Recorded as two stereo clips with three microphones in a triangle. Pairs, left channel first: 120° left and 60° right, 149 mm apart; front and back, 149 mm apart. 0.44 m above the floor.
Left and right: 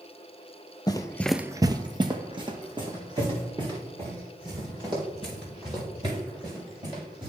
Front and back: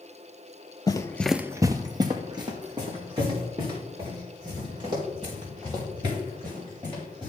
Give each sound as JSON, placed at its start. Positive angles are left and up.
{"t": 0.9, "sound": "running footsteps", "azimuth_deg": 60, "distance_m": 0.7}